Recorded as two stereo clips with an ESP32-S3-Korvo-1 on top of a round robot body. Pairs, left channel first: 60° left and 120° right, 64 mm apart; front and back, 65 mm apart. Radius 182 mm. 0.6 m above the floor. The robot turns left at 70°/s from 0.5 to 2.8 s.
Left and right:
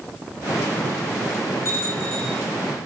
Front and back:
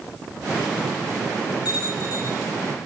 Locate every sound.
1.6 s a bell: 15° left, 6.5 m; by 2.4 s 35° right, 6.5 m